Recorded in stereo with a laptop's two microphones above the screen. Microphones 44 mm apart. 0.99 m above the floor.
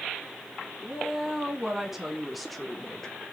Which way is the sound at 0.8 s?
15° right (ahead or behind).